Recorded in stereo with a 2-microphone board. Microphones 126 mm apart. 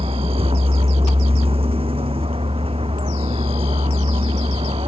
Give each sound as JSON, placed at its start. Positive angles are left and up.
{"t": 0.0, "sound": "a vehicle", "side_deg": -50}